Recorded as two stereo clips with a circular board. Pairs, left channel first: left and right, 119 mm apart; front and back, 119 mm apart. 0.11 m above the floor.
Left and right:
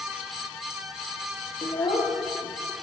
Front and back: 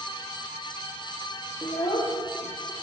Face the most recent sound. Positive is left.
turn(degrees=45)